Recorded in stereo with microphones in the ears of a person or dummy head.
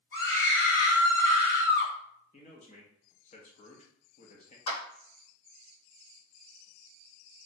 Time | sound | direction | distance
0.1 | a scream | 75° left (ahead or behind) | 1.8 m
2.3 | a man speaking | 35° left (ahead or behind) | 0.7 m
4.7 | a clap | 65° left (ahead or behind) | 1.8 m